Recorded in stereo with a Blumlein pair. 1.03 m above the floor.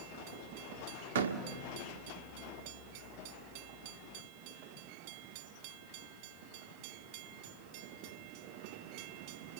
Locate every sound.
1.1 s a door slam: 60° right, 1.5 m